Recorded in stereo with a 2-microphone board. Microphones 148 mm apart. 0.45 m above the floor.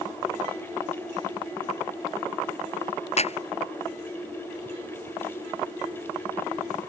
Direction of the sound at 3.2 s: 50° left (ahead or behind).